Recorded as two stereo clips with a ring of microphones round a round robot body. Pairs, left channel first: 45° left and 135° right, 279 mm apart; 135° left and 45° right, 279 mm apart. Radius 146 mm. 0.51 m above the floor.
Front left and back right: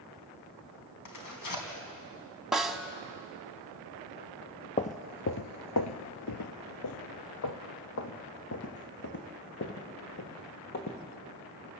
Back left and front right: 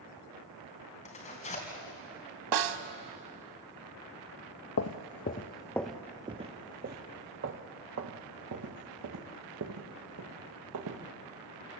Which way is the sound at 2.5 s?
45° right.